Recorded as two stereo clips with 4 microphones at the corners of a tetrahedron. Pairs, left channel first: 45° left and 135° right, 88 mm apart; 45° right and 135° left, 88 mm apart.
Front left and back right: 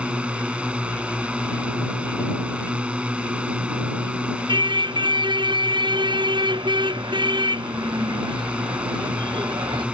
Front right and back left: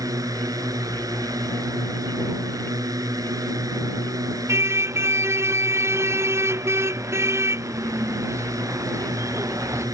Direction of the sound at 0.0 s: 155° left.